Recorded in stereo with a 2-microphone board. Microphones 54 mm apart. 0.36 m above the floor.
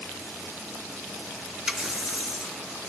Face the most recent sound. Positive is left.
turn(degrees=-5)  # may be behind; listen again after turning